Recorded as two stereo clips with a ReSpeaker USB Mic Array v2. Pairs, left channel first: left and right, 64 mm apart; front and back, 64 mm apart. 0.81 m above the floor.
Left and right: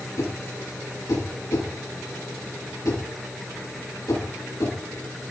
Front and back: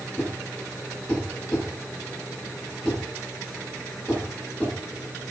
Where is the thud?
75° left, 8.5 m.